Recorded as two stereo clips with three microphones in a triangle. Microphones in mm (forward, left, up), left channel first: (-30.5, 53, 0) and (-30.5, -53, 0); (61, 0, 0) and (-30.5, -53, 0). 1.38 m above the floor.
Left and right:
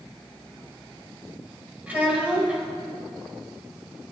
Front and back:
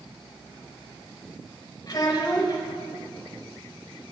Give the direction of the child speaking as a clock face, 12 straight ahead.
1 o'clock.